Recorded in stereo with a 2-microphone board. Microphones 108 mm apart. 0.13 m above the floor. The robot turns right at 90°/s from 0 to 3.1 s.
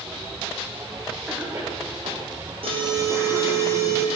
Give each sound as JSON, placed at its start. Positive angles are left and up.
{"t": 1.3, "sound": "a cough", "side_deg": 0, "distance_m": 7.0}
{"t": 2.6, "sound": "an alarm", "azimuth_deg": -70, "distance_m": 5.0}